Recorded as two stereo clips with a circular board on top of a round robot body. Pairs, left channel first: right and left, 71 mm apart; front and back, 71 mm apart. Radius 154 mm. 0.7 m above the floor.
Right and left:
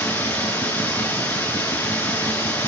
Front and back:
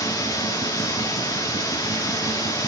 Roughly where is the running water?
Ahead right.